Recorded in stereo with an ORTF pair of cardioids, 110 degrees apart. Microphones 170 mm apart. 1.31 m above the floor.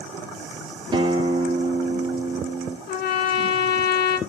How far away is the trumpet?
About 2.5 m.